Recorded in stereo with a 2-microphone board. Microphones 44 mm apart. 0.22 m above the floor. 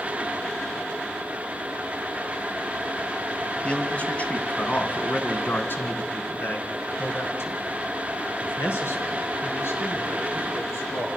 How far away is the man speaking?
About 1.7 m.